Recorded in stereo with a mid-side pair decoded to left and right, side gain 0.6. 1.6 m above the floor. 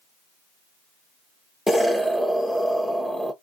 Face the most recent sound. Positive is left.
turn(degrees=5)